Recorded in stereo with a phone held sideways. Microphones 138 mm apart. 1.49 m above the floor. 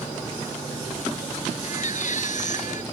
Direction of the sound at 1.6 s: 65° left (ahead or behind).